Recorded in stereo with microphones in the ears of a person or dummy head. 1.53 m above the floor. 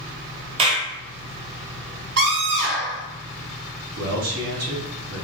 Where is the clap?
35° right (ahead or behind), 1.0 m.